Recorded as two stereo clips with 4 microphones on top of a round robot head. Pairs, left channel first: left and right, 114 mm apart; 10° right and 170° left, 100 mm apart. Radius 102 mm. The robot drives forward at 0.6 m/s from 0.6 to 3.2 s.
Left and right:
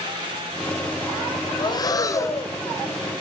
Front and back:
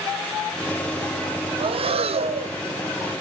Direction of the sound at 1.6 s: 145° left.